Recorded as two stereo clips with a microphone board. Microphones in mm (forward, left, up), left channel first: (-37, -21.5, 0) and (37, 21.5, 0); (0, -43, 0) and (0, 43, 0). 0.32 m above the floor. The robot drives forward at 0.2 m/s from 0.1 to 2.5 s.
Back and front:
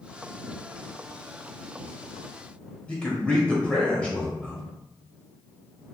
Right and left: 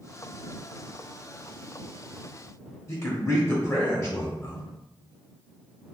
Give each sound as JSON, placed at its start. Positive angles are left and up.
{"t": 2.9, "sound": "a man speaking", "azimuth_deg": -85, "distance_m": 0.9}